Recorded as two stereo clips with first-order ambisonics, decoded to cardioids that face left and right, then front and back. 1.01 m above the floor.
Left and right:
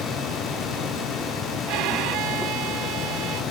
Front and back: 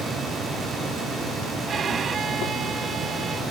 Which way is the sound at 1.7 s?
115° right.